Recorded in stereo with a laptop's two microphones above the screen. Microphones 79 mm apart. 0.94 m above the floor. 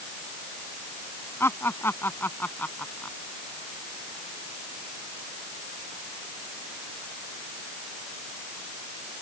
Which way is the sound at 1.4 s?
30° left (ahead or behind).